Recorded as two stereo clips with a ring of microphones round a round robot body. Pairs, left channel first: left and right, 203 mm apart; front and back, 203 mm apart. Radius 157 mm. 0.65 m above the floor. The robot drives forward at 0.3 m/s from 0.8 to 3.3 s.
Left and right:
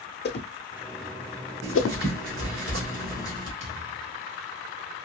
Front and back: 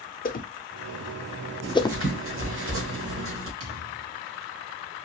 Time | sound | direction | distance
0.2 | a whoosh | 50° left | 0.8 m
1.6 | writing | 135° right | 1.5 m
3.6 | a thud | 175° right | 2 m